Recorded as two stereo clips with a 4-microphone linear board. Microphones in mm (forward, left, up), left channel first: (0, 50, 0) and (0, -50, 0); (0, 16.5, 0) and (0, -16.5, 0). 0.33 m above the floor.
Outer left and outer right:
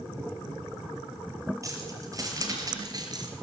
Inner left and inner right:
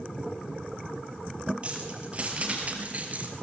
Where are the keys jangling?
30° right (ahead or behind), 5 m; by 3.3 s 45° right (ahead or behind), 3 m.